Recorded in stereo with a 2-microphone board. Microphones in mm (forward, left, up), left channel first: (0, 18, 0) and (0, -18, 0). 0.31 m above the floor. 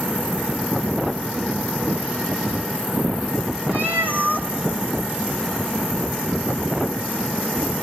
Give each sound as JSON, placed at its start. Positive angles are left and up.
{"t": 3.7, "sound": "a cat meowing", "side_deg": -60, "distance_m": 3.0}